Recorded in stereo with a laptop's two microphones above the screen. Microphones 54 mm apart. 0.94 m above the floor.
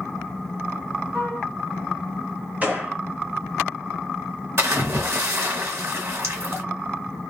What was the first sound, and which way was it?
A flute, 55° right (ahead or behind).